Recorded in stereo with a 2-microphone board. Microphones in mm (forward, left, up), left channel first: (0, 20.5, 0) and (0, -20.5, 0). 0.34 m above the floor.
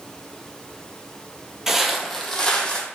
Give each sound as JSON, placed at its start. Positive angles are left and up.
{"t": 1.7, "sound": "footsteps", "side_deg": -10, "distance_m": 0.6}